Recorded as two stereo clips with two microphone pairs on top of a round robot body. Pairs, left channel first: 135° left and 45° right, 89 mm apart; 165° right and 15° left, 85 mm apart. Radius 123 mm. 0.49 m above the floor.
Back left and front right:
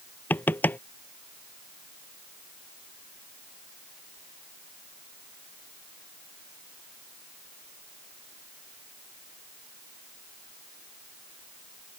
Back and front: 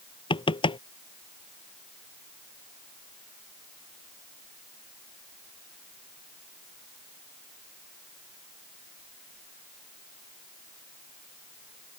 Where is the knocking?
155° right.